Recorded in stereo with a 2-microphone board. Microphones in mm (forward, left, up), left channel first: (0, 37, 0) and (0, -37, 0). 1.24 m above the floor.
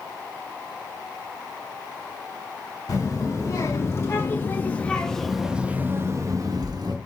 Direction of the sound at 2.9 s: 45° left (ahead or behind).